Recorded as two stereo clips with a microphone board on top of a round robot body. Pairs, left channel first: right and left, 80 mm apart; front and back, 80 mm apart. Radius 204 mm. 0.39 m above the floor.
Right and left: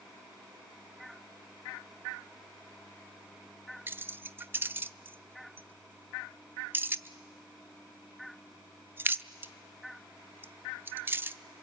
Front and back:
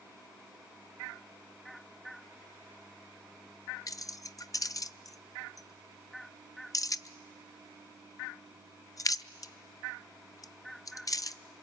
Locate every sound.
3.9 s keys jangling: 30° left, 0.7 m